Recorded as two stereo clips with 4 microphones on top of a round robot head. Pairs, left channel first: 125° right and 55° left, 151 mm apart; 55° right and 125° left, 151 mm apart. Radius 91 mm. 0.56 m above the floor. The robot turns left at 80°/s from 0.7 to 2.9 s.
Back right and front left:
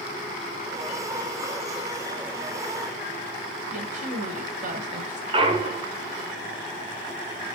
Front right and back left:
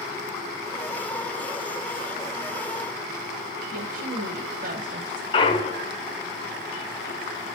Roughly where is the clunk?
Ahead.